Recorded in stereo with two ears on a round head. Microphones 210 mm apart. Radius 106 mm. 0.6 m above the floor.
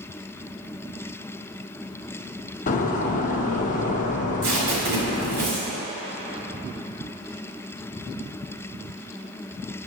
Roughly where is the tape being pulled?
Right.